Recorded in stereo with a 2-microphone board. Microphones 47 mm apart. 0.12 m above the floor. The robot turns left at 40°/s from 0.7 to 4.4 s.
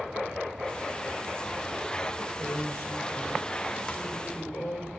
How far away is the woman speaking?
About 5.5 m.